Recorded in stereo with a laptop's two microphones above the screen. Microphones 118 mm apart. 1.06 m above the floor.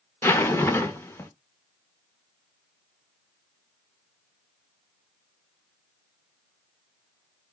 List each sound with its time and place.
0.2 s a zipper: 20° left (ahead or behind), 0.5 m